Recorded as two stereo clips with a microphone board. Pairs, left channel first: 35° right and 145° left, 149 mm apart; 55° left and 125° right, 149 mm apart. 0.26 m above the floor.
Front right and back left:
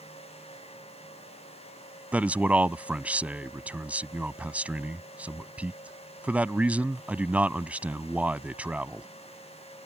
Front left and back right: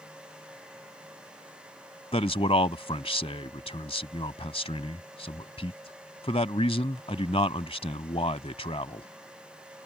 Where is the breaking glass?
No breaking glass in this recording.